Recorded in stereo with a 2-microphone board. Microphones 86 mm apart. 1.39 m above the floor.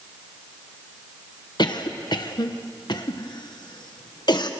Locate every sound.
1.6 s a cough: 55° left (ahead or behind), 1.3 m